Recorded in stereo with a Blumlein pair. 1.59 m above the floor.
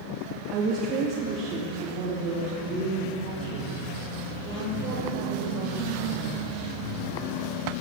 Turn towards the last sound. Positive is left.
turn(degrees=-35)